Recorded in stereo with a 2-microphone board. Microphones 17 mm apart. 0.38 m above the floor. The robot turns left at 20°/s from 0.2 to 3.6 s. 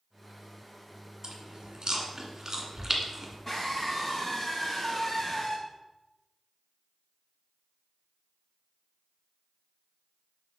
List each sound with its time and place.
1.2 s chewing: 60° right (ahead or behind), 1.6 m; by 3.4 s 20° right (ahead or behind), 1.6 m
3.5 s a scream: 25° left (ahead or behind), 3 m